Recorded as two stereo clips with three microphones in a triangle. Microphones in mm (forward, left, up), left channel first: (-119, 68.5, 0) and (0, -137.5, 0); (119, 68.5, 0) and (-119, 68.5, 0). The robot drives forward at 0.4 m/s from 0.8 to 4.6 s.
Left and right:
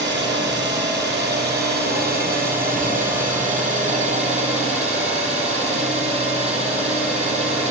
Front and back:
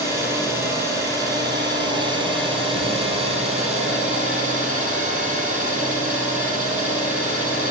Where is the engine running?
100° right, 3.5 m; by 7.7 s 120° right, 4 m.